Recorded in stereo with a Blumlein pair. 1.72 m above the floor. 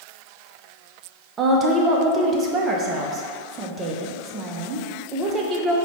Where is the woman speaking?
25° right, 0.6 m.